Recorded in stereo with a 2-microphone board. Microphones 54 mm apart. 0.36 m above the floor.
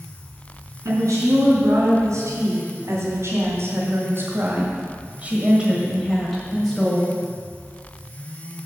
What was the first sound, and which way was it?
A woman speaking, 75° right (ahead or behind).